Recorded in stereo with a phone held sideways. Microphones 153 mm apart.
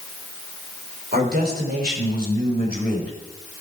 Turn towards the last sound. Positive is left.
turn(degrees=-90)